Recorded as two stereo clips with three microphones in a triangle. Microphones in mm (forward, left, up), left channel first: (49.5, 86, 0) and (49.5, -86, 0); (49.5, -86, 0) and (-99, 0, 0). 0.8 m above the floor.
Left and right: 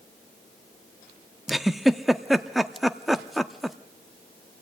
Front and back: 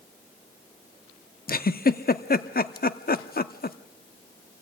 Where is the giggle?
Straight ahead, 0.7 m.